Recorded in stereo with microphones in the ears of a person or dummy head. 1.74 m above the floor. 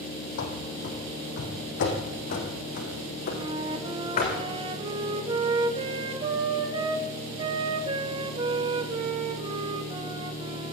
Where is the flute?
30° right (ahead or behind), 2.0 m.